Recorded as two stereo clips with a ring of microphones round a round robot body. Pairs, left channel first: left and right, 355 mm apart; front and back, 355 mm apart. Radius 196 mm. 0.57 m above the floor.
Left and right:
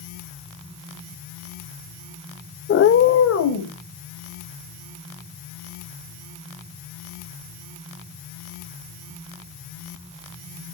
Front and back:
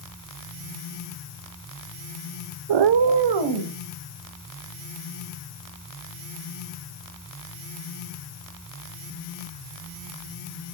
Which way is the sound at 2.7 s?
155° left.